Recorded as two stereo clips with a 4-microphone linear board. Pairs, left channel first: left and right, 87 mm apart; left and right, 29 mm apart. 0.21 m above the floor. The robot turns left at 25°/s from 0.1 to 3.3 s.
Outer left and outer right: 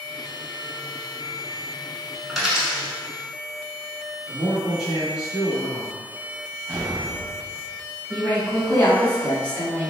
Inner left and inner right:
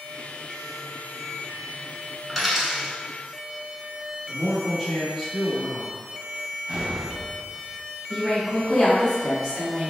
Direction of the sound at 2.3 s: Centre (ahead or behind).